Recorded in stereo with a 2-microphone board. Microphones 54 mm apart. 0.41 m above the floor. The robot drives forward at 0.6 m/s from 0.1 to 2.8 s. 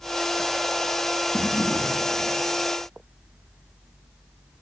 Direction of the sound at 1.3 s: 60° left (ahead or behind).